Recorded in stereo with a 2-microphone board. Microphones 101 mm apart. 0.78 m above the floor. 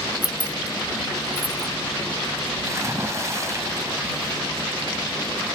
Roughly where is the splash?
Right.